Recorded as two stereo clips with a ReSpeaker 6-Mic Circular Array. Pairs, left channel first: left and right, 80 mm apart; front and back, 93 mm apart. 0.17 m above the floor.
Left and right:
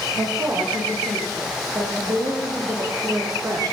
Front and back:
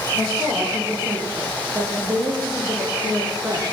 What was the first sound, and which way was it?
A woman speaking, 120° right.